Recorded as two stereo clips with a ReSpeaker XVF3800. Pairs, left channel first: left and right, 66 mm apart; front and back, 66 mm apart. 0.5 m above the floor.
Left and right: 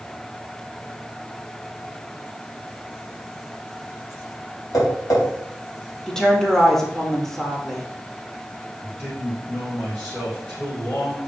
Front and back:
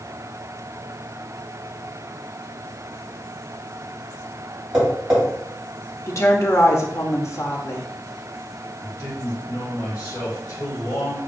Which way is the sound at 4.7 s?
105° left.